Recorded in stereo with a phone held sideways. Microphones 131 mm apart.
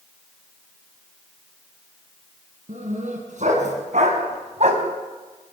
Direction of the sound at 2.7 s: 70° right (ahead or behind).